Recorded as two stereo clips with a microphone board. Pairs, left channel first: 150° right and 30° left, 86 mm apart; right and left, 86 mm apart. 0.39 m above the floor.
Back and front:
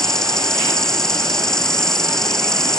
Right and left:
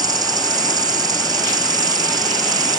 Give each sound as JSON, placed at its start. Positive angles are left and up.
{"t": 0.0, "sound": "an insect", "azimuth_deg": 125}